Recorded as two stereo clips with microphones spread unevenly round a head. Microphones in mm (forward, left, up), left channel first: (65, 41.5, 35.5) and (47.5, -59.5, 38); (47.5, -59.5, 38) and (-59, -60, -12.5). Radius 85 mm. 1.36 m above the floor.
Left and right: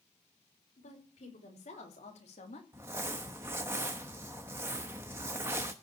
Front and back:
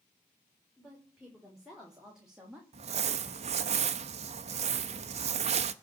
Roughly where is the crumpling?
Behind.